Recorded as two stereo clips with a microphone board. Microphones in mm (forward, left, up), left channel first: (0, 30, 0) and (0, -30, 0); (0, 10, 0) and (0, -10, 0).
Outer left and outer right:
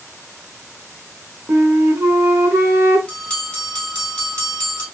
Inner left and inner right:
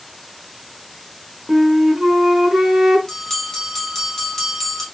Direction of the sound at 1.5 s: 40° right (ahead or behind).